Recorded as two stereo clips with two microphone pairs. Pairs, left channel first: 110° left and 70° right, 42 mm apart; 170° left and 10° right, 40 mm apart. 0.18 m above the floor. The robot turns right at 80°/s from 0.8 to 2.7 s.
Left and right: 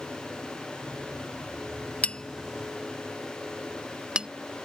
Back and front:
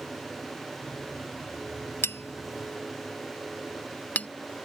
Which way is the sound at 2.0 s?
170° left.